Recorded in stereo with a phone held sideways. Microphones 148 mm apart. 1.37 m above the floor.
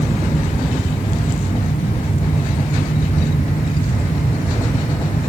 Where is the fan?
70° left (ahead or behind).